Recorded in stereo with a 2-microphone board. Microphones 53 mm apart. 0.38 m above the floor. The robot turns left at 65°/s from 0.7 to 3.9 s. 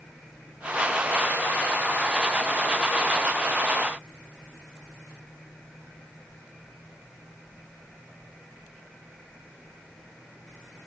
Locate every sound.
Only background noise.